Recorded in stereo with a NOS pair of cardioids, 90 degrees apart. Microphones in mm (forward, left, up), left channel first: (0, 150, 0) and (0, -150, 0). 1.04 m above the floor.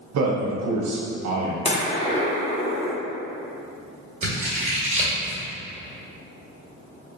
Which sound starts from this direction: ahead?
A gunshot, at 1.6 s.